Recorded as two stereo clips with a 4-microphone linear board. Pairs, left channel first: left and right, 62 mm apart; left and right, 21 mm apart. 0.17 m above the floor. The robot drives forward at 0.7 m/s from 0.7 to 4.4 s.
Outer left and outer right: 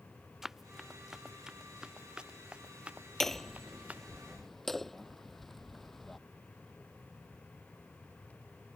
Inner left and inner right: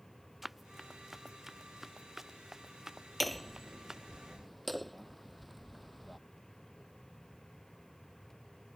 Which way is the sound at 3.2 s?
5° left (ahead or behind).